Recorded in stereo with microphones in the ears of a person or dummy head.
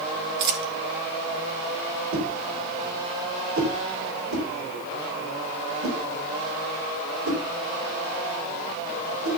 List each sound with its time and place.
0.4 s a dropped coin: 60° right (ahead or behind), 1.5 m
2.1 s a whoosh: 90° right, 4.5 m